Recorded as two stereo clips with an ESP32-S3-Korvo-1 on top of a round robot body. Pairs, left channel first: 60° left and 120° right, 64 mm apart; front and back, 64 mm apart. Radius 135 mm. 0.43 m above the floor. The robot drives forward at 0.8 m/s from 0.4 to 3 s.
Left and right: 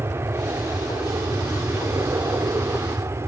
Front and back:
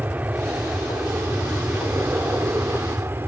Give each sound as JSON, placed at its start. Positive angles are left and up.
{"t": 0.0, "sound": "an aircraft", "azimuth_deg": -130}